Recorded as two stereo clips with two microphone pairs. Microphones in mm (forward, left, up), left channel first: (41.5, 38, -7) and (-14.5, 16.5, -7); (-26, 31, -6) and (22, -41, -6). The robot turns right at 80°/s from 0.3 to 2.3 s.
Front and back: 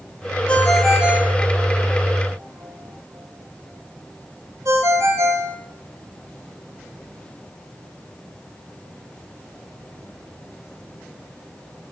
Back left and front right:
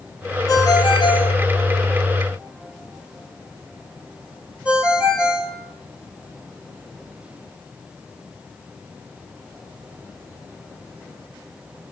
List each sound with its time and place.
0.5 s a ringtone: 85° left, 1.3 m; by 5.5 s 130° right, 1.3 m